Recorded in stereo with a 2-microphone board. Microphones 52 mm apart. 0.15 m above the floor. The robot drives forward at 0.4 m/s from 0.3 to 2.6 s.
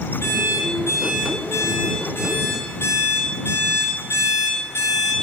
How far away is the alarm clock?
About 6.5 m.